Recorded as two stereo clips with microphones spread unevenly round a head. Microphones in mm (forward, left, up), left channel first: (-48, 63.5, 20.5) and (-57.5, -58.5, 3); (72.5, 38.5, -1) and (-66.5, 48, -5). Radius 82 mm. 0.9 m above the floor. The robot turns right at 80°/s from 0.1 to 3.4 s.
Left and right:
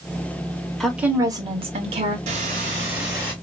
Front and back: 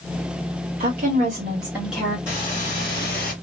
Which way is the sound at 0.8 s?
175° left.